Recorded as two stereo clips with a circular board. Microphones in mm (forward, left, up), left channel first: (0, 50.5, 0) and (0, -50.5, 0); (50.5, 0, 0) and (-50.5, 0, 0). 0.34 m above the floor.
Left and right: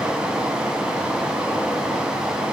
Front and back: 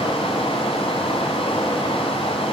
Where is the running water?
10° right, 2 m.